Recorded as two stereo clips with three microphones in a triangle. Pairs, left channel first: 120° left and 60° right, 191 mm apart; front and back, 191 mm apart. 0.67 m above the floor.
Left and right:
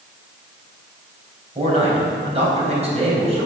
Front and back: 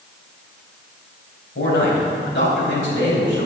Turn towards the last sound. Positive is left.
turn(degrees=-5)